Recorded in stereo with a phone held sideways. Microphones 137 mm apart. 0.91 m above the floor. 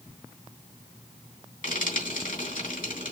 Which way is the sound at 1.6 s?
85° left.